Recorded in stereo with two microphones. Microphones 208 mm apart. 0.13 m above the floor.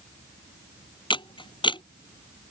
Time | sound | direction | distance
1.1 | a camera shutter | 20° left (ahead or behind) | ?